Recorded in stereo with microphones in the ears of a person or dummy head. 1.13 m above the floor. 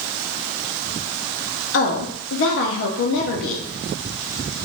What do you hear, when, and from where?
1.7 s a woman speaking: 55° left (ahead or behind), 0.6 m